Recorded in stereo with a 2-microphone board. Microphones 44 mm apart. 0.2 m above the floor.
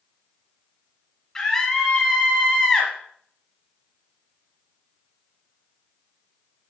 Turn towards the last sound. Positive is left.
turn(degrees=10)  # may be behind; listen again after turning